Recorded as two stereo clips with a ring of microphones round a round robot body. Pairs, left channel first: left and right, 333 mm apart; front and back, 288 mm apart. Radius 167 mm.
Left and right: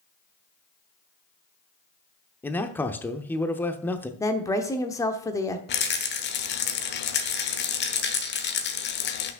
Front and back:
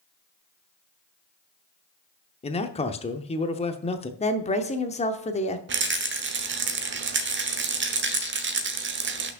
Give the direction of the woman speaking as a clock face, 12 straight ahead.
11 o'clock.